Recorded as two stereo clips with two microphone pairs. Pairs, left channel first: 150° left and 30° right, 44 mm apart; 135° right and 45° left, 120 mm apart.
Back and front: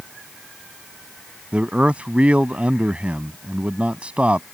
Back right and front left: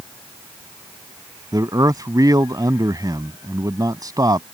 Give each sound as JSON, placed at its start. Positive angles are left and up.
{"t": 1.5, "sound": "a man speaking", "azimuth_deg": 10}